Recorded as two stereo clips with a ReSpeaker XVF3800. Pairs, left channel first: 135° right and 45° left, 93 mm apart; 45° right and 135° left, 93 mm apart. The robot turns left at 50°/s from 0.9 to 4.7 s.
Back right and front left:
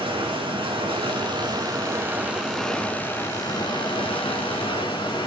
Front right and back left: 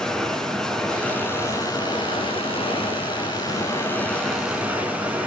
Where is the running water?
35° left, 3 m; by 5.3 s 155° right, 3 m.